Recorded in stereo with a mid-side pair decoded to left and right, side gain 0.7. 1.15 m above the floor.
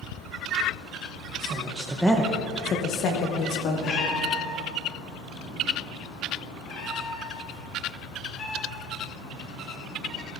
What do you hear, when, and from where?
1.4 s a woman speaking: 50° right, 1.4 m; by 4.1 s 70° left, 3 m
3.8 s a cat meowing: 40° left, 2.5 m